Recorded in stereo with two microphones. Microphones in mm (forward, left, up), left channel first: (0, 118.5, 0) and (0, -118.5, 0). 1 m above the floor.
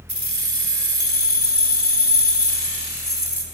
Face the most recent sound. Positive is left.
turn(degrees=-45)  # may be behind; listen again after turning